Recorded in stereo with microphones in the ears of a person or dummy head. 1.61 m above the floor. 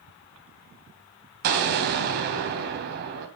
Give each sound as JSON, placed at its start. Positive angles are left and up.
{"t": 1.4, "sound": "an explosion", "side_deg": -60, "distance_m": 3.0}